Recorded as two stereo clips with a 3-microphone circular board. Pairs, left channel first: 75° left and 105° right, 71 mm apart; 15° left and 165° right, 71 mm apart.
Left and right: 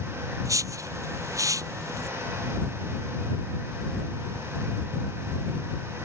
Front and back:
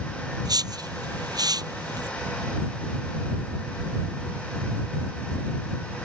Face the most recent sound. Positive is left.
turn(degrees=-145)